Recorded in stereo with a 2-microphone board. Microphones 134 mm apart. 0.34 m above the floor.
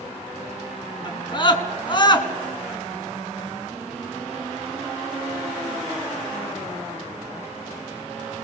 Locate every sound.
1.1 s a scream: 35° left (ahead or behind), 4 m